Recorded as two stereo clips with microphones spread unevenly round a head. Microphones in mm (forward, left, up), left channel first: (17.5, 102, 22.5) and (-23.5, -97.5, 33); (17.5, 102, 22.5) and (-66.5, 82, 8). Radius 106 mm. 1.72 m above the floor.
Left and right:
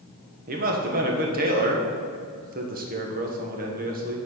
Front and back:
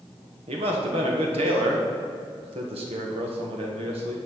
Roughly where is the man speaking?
Behind right.